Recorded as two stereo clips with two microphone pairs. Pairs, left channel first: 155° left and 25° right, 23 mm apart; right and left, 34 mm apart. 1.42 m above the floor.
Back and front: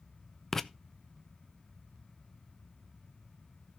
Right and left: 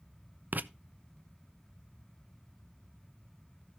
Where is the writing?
75° left, 0.5 m.